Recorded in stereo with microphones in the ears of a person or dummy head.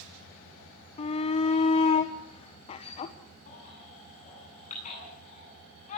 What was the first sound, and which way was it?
A shout, 35° left (ahead or behind).